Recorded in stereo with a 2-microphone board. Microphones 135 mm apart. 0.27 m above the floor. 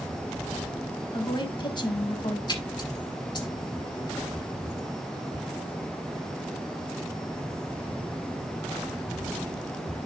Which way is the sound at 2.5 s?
35° left (ahead or behind).